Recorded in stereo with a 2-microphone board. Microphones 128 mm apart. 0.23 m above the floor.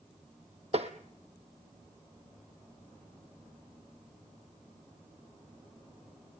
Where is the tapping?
55° right (ahead or behind), 2.0 m.